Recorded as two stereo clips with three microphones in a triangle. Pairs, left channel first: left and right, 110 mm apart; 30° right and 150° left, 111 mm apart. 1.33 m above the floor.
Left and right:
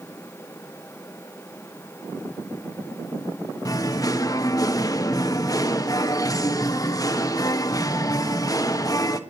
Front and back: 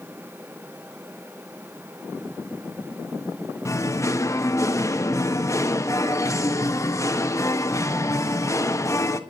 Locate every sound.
3.6 s singing: 30° left, 1.2 m